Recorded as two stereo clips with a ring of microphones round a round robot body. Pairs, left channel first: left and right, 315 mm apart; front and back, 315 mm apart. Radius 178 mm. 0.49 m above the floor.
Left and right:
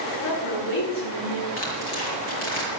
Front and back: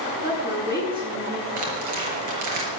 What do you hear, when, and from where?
0.2 s a woman speaking: 100° left, 7 m; by 1.5 s 105° left, 7 m
1.6 s tearing paper: 145° left, 5 m